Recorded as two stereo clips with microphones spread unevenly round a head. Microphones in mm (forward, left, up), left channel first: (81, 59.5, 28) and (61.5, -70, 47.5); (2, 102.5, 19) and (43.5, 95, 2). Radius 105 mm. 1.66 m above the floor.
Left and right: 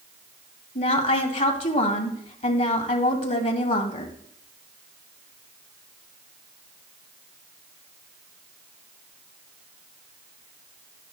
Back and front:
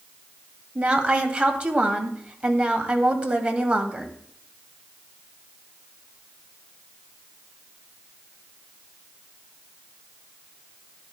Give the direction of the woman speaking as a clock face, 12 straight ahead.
10 o'clock.